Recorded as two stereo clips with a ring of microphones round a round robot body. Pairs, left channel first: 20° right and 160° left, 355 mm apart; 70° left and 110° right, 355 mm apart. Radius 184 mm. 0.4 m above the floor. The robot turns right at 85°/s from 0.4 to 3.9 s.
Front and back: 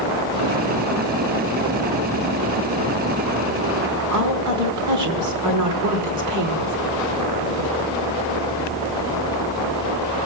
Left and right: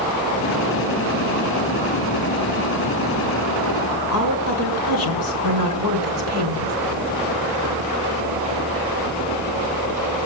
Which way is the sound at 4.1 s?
115° left.